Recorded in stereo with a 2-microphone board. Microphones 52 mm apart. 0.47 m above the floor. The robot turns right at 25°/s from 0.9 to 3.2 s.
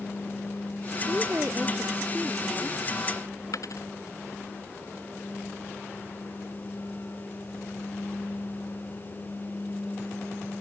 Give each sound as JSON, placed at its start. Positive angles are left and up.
{"t": 1.1, "sound": "a woman speaking", "azimuth_deg": -40}
{"t": 3.5, "sound": "a dropped coin", "side_deg": 75}